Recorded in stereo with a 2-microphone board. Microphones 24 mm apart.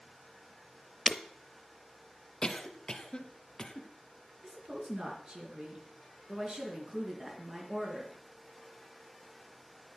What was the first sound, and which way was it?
Breaking glass, 5° left (ahead or behind).